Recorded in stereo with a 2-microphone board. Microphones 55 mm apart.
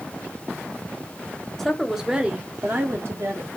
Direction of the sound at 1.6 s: 5° left (ahead or behind).